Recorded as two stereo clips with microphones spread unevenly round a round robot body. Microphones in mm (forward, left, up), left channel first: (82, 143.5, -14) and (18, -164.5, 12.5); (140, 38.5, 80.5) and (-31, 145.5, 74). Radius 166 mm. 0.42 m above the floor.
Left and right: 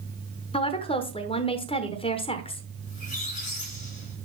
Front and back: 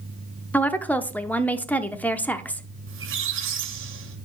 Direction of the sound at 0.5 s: 45° left.